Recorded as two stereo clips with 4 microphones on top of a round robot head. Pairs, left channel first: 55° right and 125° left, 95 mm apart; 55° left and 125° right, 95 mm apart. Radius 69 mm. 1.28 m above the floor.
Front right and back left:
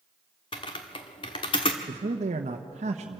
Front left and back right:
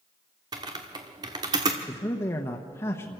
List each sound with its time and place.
0.5 s typing on a keyboard: 85° right, 1.0 m
1.9 s a man speaking: 120° left, 1.0 m